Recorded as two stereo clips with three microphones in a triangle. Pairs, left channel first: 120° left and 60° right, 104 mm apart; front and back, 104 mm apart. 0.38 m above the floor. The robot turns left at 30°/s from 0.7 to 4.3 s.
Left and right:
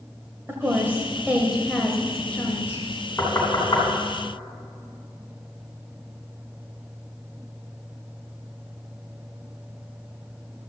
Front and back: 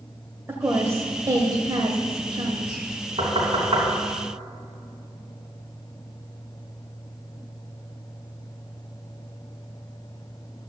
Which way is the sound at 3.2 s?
175° right.